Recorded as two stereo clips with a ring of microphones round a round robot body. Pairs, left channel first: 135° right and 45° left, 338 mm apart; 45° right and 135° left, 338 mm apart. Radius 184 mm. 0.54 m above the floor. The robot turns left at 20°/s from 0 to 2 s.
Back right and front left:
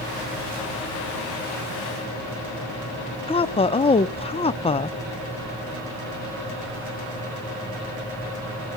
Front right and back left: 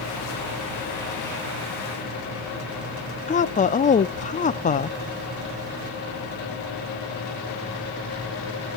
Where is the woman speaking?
85° right, 0.8 m.